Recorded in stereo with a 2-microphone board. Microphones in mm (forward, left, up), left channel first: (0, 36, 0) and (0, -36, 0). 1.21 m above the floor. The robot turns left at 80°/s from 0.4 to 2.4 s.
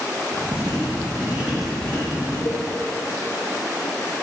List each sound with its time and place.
0.5 s writing: 90° right, 1.6 m; by 2.4 s 125° left, 1.6 m
2.5 s a cowbell: 45° left (ahead or behind), 1.0 m